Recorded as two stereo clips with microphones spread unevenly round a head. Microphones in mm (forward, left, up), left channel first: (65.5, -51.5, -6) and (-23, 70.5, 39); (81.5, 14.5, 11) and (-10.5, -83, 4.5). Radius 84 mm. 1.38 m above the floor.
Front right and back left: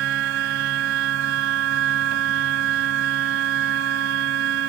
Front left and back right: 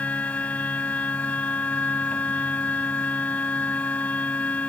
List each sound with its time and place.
0.0 s a machine running: 130° left